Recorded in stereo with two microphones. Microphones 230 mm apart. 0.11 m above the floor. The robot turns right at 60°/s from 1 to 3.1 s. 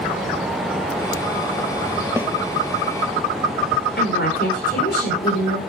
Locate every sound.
2.2 s a snare drum: 10° right (ahead or behind), 1.2 m; by 2.3 s centre (ahead or behind), 1.2 m
4.0 s a woman speaking: 50° left (ahead or behind), 8.5 m